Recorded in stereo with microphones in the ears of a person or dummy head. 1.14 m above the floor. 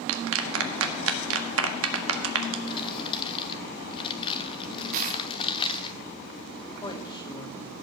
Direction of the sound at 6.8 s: 25° left (ahead or behind).